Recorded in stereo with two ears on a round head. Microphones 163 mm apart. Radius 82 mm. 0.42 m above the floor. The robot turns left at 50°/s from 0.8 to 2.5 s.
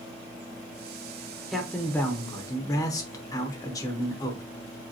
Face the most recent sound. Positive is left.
turn(degrees=20)  # may be behind; listen again after turning